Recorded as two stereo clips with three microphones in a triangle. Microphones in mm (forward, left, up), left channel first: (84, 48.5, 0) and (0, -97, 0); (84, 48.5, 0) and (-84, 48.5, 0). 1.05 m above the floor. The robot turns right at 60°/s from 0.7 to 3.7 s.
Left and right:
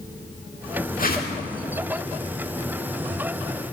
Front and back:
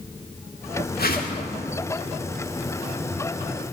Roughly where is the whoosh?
Ahead left.